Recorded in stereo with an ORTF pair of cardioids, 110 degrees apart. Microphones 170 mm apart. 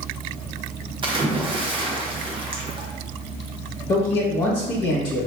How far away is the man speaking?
About 1.2 m.